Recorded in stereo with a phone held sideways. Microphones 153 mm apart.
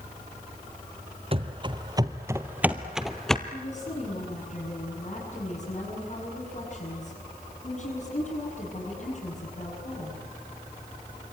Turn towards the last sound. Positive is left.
turn(degrees=45)  # may be behind; listen again after turning